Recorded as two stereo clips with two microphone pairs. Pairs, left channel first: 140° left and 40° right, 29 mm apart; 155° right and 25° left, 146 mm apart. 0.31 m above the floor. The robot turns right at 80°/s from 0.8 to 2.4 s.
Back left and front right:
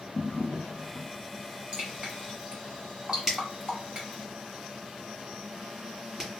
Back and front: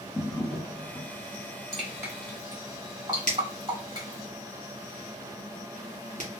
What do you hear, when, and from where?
0.1 s a drawer: 130° left, 1.4 m; by 1.1 s 155° left, 1.4 m
1.7 s dripping: 70° right, 2 m; by 4.3 s 15° right, 2 m
3.3 s a finger snap: 30° left, 2 m